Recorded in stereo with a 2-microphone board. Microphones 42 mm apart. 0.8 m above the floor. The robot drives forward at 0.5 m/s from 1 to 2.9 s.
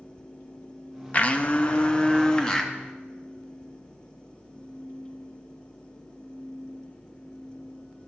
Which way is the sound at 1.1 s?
35° left (ahead or behind).